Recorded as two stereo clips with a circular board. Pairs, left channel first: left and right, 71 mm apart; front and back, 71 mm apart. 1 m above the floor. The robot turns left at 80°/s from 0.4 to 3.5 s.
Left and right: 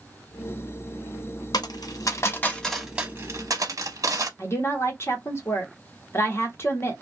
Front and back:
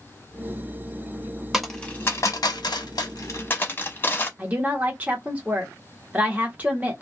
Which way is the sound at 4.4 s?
120° left.